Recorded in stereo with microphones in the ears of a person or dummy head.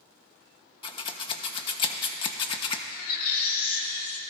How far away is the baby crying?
About 1.8 m.